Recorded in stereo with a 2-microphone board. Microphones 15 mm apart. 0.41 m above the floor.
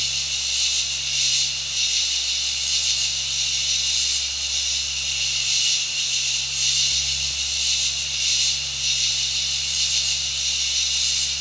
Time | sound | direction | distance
0.0 | an insect | 5° right (ahead or behind) | 3.5 m